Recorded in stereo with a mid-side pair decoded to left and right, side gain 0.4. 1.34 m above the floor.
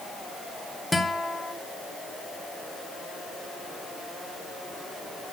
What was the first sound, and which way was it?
A guitar, 10° left.